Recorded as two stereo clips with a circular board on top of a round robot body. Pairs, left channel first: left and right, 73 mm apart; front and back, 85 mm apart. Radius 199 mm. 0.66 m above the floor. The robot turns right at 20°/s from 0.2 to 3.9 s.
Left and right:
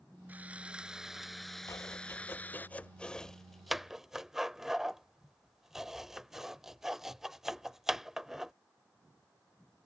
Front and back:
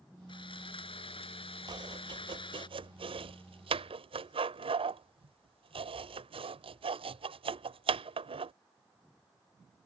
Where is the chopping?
140° left; by 8.5 s 175° right.